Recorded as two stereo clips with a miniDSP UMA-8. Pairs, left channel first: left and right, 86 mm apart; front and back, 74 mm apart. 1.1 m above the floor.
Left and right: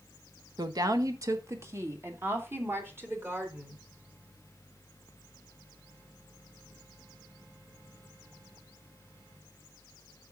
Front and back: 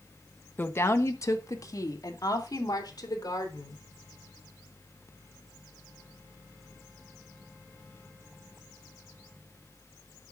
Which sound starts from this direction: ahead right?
A woman speaking, at 0.6 s.